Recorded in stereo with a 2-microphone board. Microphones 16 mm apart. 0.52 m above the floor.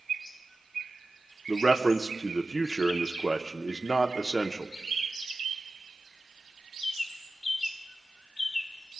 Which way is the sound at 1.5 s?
Centre (ahead or behind).